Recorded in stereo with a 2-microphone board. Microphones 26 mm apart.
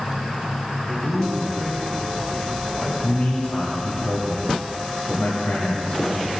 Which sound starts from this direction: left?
A man speaking, at 3.0 s.